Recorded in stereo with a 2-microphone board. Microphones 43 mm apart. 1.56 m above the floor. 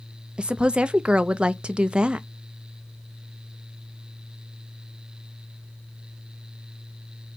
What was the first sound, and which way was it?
A woman speaking, 25° right (ahead or behind).